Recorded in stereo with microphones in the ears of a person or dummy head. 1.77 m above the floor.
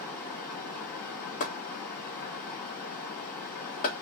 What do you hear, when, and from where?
0.0 s running water: 15° left (ahead or behind), 1.9 m
1.4 s chopping: 40° left (ahead or behind), 1.7 m